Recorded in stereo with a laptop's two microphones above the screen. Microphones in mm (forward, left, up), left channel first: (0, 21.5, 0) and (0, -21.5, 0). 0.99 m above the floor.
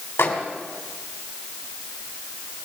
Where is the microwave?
75° left (ahead or behind), 3 m.